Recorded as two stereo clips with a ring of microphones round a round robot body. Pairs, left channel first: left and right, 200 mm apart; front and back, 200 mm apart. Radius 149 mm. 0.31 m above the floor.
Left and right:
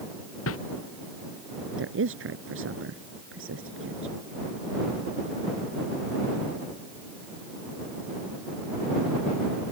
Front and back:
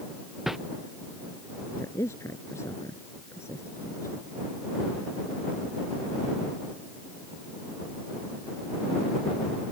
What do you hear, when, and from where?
0.5 s a whoosh: 90° left
1.8 s a woman speaking: 80° right